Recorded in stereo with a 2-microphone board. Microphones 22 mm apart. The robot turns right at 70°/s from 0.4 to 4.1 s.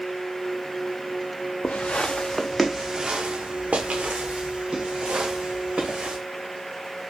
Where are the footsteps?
85° left, 0.5 m; by 6.2 s 65° right (ahead or behind), 3 m.